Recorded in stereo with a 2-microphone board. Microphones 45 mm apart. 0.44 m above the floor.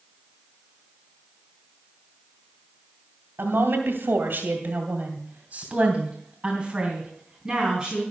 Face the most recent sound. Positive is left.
turn(degrees=-5)  # may be behind; listen again after turning